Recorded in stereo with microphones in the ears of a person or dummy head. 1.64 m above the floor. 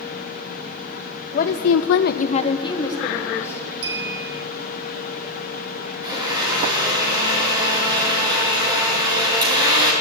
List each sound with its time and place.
1.3 s a woman speaking: 40° left (ahead or behind), 0.7 m; by 3.7 s 15° left (ahead or behind), 2 m
3.8 s a clink: 75° right (ahead or behind), 2.5 m
6.0 s a blender: 20° right (ahead or behind), 3 m